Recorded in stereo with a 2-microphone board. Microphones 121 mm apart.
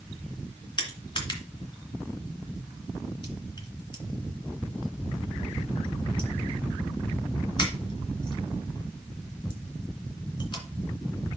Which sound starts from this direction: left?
Crushing, at 0.8 s.